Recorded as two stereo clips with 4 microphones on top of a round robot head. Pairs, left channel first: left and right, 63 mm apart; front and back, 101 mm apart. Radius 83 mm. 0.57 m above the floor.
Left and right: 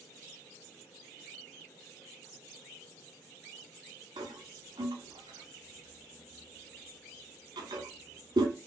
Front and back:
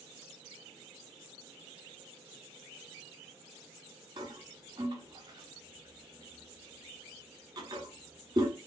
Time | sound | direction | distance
4.2 | a toilet flushing | 120° right | 0.8 m